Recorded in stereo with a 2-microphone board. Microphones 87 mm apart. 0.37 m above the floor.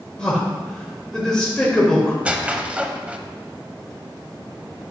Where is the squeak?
15° right (ahead or behind), 0.6 m.